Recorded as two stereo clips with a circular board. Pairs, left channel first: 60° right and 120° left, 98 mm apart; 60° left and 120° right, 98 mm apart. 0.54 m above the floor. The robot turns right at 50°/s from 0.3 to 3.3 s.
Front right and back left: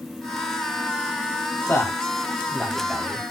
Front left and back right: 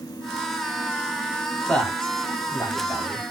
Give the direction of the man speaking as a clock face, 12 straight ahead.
1 o'clock.